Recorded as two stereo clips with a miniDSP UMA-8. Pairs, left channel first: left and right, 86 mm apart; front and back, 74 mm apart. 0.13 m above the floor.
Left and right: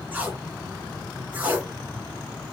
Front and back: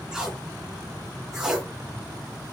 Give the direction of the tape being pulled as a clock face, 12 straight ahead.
4 o'clock.